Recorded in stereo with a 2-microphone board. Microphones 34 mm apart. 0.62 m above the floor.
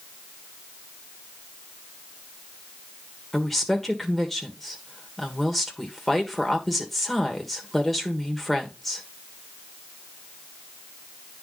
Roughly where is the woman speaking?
Centre.